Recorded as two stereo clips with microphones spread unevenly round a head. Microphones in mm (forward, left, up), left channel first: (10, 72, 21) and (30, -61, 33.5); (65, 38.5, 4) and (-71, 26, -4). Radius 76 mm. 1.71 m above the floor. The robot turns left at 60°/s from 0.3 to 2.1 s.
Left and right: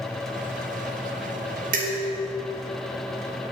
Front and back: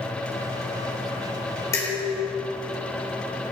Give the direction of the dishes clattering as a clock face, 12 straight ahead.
2 o'clock.